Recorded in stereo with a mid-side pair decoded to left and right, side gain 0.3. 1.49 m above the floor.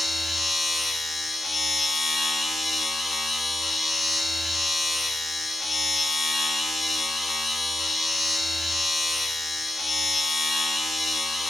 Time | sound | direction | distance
0.0 | a machine running | 40° left | 1.4 m